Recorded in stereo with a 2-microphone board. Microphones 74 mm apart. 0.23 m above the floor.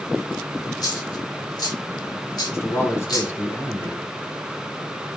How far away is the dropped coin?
About 4 m.